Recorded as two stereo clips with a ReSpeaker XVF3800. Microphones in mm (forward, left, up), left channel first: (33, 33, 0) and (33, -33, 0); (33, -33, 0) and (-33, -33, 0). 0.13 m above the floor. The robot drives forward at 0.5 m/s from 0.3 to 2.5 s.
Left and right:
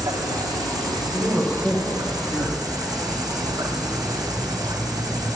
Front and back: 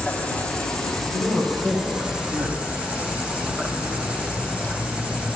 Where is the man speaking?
150° left, 3 m; by 2.7 s 155° left, 3.5 m.